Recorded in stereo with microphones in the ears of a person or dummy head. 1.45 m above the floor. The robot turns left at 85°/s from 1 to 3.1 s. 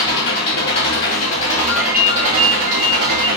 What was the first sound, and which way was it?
An engine running, 65° left.